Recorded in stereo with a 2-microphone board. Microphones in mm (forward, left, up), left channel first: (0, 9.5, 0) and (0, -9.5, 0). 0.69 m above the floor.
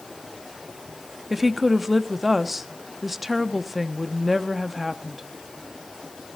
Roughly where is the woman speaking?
Centre.